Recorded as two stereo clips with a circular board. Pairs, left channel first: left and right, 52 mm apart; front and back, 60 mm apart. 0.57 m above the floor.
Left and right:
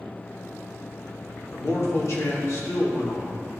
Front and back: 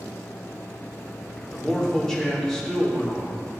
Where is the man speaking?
80° left, 1.4 m.